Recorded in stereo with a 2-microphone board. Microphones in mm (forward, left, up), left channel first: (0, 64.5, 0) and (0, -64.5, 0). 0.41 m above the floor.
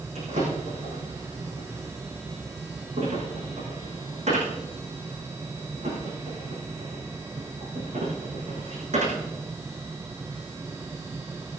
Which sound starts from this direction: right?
A drawer, at 0.1 s.